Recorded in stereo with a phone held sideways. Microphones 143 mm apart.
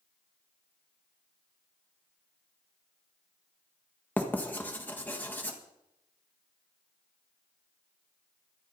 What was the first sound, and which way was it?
Writing, 15° left (ahead or behind).